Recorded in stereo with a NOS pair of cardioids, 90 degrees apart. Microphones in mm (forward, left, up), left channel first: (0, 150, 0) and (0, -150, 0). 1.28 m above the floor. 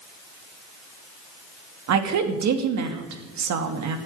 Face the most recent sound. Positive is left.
turn(degrees=-65)